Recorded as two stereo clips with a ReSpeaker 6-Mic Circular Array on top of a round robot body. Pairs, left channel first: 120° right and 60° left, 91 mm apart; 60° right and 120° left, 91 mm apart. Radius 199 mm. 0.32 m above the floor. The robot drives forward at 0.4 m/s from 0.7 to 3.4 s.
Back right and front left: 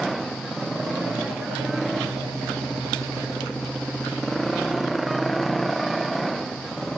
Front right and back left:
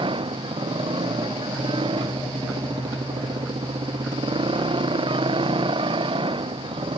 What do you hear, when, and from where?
0.0 s a motorcycle: 150° left